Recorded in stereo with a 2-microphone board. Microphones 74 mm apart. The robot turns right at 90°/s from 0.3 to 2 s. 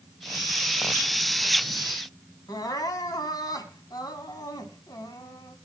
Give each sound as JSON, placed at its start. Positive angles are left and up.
{"t": 2.5, "sound": "crying", "side_deg": 60, "distance_m": 2.0}